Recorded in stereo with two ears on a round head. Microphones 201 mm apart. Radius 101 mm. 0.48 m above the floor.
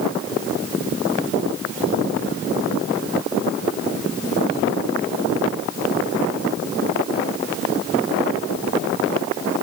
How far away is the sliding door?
I don't hear a sliding door.